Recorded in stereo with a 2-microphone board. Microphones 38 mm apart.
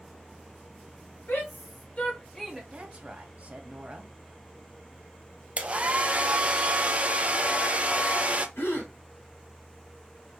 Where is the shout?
70° left (ahead or behind), 1.7 m; by 2.6 s 10° right (ahead or behind), 1.0 m.